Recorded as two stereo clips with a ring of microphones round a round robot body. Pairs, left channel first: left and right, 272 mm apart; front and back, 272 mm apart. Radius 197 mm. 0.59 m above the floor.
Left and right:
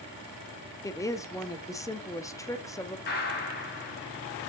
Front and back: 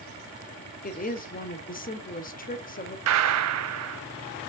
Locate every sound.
0.8 s a woman speaking: 20° left, 0.9 m
3.1 s a gunshot: 155° left, 0.8 m